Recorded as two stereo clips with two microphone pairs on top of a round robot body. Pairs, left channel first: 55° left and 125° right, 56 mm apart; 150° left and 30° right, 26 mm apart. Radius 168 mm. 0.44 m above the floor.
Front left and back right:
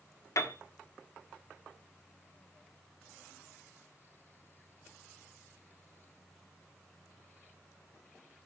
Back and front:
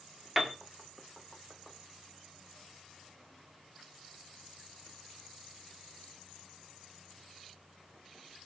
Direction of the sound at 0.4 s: 60° left.